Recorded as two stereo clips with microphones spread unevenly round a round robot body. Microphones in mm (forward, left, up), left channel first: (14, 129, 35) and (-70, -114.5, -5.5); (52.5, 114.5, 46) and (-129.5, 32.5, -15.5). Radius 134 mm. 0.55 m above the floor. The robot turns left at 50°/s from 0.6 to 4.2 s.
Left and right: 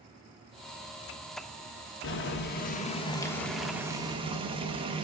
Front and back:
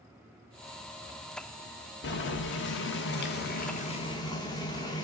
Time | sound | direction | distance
2.0 | boiling | 50° left | 1.0 m